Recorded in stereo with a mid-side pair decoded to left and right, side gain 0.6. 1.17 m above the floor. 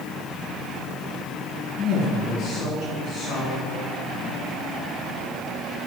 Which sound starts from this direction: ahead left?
A woman speaking, at 1.8 s.